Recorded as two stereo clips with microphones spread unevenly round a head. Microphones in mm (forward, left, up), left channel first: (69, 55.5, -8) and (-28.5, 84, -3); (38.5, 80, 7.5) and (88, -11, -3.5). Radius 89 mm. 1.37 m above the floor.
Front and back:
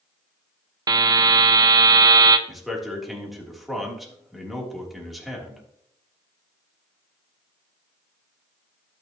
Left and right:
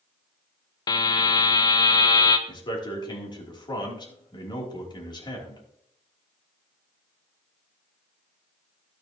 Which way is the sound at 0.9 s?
135° left.